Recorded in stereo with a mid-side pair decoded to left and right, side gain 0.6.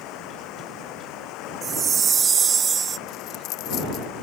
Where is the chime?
35° right.